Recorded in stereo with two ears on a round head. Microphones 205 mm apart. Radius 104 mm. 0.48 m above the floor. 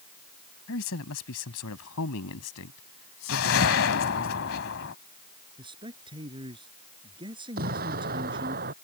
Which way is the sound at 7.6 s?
40° right (ahead or behind).